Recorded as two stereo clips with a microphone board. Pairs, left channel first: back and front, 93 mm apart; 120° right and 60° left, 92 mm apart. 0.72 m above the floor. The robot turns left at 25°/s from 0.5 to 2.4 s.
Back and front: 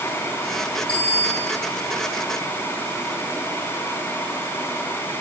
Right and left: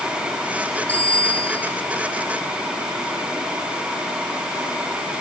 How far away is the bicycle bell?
About 8.5 m.